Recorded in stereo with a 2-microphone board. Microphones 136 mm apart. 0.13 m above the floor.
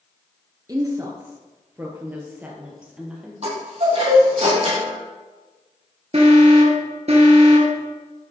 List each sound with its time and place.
0.7 s a woman speaking: 30° right (ahead or behind), 1.8 m; by 3.3 s 5° right (ahead or behind), 3 m
3.4 s a chime: 50° right (ahead or behind), 4.5 m
6.1 s an alarm: 50° right (ahead or behind), 2 m